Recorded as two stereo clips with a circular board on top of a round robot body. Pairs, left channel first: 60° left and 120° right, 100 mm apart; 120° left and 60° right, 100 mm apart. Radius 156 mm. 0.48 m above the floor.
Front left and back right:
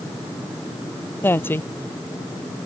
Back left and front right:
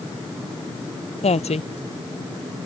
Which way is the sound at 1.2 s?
130° left.